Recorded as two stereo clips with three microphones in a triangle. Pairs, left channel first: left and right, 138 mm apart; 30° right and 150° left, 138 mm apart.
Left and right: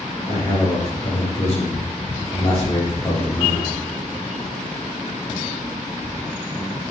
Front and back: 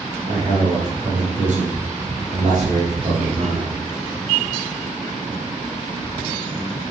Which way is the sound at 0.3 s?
125° left.